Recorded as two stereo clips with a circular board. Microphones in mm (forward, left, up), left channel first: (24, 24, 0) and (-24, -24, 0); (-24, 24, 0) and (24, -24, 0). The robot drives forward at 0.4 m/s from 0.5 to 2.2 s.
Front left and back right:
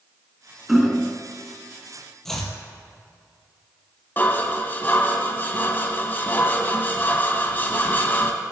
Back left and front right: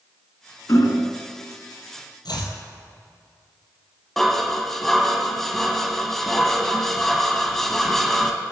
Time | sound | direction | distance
0.7 | hammering | 140° left | 1.0 m
2.2 | chopping | 130° left | 1.7 m
4.2 | dishes clattering | 55° left | 0.9 m